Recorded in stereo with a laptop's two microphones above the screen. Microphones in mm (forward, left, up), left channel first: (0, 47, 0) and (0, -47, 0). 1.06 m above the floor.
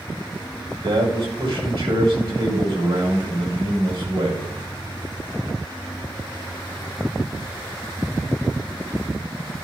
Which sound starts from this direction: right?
A man speaking, at 0.8 s.